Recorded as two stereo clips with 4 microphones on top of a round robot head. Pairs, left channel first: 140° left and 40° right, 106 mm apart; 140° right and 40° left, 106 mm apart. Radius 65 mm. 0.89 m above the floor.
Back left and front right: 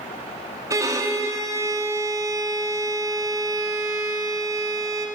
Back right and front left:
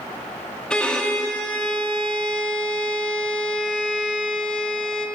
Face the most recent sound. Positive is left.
turn(degrees=-65)